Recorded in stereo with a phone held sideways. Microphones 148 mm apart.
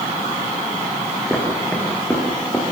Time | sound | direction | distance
1.3 | footsteps | 5° left (ahead or behind) | 5.5 m